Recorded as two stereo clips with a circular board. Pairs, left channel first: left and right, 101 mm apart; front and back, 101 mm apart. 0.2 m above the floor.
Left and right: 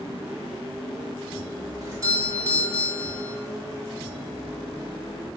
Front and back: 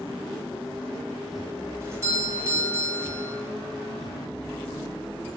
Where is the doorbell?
130° right, 2.5 m.